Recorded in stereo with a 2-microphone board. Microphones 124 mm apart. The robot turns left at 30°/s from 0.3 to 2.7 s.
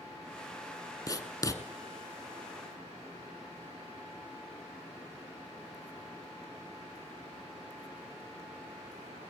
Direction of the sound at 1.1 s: 30° left (ahead or behind).